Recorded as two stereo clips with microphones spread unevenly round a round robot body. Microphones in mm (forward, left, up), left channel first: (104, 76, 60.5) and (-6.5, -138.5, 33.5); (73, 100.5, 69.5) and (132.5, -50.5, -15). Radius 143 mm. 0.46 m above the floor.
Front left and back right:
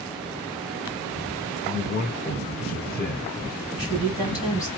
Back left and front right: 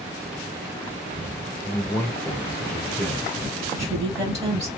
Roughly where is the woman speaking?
Ahead.